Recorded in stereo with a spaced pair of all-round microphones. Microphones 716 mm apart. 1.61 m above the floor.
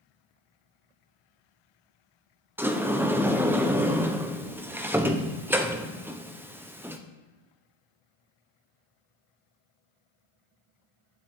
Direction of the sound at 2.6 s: 5° right (ahead or behind).